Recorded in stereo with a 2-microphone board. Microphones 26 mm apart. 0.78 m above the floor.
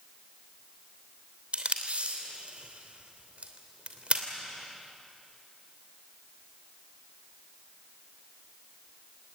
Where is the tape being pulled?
55° right (ahead or behind), 3 m.